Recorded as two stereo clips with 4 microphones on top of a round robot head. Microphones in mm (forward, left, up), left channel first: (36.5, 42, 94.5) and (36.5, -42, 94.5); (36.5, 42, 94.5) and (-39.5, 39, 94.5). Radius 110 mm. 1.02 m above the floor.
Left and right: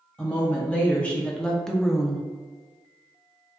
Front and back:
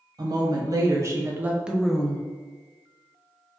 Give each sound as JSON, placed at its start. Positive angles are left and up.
{"t": 0.2, "sound": "a woman speaking", "azimuth_deg": 165, "distance_m": 1.1}